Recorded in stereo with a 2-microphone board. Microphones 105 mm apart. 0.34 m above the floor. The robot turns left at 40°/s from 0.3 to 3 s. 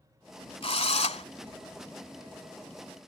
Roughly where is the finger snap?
No finger snap in this recording.